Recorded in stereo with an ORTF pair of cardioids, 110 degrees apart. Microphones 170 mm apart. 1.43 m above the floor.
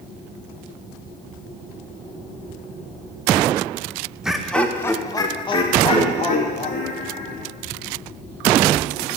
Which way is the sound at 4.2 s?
5° right.